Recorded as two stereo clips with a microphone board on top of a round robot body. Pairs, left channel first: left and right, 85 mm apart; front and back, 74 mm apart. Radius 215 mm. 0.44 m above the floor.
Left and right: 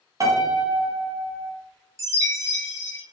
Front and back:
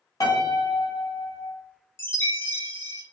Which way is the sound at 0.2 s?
40° right.